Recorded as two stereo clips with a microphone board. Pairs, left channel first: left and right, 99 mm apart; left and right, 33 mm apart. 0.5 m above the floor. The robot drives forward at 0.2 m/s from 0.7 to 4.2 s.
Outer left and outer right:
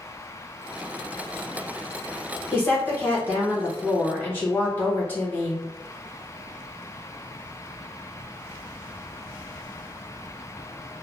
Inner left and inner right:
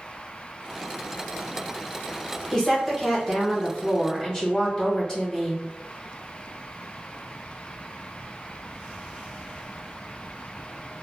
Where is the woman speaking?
20° left (ahead or behind), 1.2 m.